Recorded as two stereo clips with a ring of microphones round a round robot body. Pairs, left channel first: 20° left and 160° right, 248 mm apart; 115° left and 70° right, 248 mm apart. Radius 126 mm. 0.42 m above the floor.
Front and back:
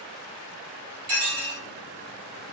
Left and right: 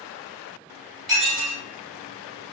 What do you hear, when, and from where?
1.1 s dishes clattering: 160° right, 1.7 m